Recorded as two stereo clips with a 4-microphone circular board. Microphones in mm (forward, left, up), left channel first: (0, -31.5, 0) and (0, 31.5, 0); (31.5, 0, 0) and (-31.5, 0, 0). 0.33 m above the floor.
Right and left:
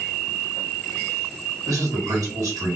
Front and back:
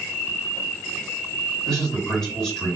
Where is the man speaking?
85° left, 2 m.